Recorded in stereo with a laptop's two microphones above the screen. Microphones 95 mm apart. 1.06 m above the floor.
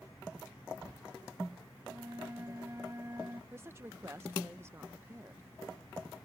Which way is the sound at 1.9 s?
30° right (ahead or behind).